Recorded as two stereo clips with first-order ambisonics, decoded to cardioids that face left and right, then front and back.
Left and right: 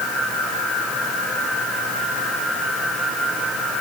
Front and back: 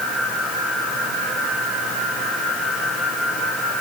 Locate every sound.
Only background noise.